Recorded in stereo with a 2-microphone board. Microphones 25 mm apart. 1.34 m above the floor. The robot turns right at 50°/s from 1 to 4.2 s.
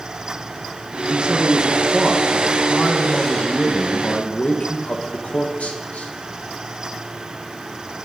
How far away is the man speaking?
About 1.1 m.